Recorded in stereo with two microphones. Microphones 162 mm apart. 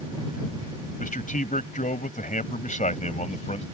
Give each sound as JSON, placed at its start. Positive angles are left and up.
{"t": 1.0, "sound": "a man speaking", "side_deg": 55}